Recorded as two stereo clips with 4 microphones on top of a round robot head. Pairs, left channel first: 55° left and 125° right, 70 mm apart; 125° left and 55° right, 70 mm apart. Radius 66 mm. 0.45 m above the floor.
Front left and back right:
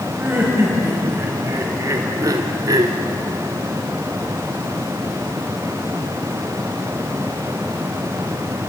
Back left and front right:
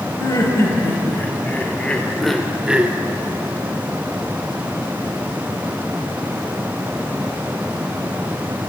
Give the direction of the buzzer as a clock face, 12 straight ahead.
No buzzer in this recording.